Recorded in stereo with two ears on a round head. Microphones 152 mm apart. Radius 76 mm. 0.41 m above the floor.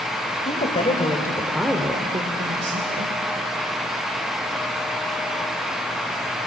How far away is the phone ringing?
No phone ringing in this recording.